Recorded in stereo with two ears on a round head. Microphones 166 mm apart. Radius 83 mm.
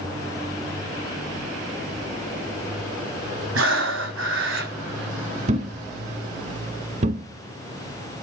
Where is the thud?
40° right (ahead or behind), 0.9 m.